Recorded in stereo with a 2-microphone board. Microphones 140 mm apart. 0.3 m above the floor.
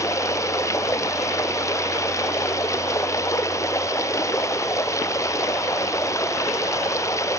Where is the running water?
20° left (ahead or behind).